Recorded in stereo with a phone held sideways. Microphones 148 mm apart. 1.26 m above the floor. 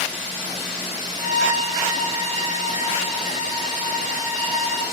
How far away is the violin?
About 1.1 m.